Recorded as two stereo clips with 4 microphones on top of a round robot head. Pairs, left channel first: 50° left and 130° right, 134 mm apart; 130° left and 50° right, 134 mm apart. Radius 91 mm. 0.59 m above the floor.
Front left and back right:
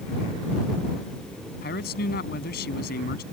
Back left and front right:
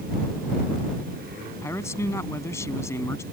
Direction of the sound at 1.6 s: 55° left.